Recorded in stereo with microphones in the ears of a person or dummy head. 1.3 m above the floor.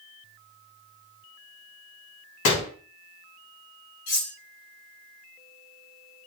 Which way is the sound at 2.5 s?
60° left (ahead or behind).